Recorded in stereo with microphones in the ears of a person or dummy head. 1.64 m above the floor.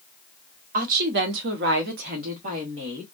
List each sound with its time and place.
0.7 s a woman speaking: 50° right (ahead or behind), 0.8 m; by 3.0 s 35° right (ahead or behind), 1.3 m